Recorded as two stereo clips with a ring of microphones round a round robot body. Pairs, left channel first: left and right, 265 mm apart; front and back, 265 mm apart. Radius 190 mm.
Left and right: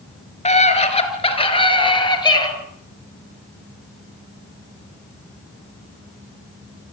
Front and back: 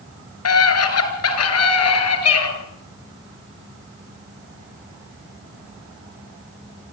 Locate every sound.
0.5 s a scream: 25° left, 6.5 m; by 2.5 s 15° left, 7.5 m